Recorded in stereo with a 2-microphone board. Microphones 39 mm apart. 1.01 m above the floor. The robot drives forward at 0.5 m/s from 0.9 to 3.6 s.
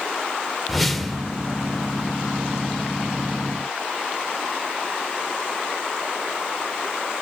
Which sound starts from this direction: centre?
A whoosh, at 0.7 s.